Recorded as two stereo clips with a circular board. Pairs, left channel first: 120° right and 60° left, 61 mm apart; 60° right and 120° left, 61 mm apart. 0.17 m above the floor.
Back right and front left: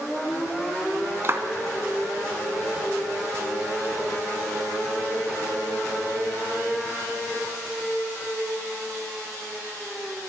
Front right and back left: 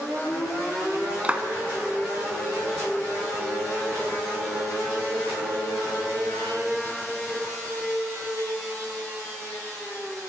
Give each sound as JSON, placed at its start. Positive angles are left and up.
{"t": 1.2, "sound": "a clap", "azimuth_deg": 65, "distance_m": 1.0}